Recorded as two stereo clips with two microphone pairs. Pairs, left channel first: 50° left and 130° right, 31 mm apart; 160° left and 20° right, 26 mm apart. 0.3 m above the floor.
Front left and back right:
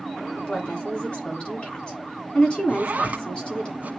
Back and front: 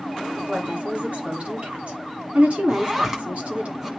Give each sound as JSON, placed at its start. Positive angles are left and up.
{"t": 0.4, "sound": "a woman speaking", "azimuth_deg": -5, "distance_m": 3.0}
{"t": 2.7, "sound": "a zipper", "azimuth_deg": -95, "distance_m": 1.2}